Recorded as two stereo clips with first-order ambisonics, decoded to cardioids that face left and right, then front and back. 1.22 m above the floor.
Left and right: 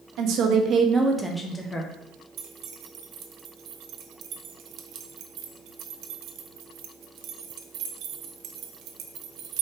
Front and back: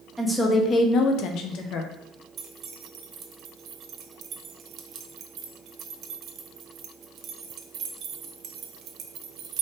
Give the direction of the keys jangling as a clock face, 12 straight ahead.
4 o'clock.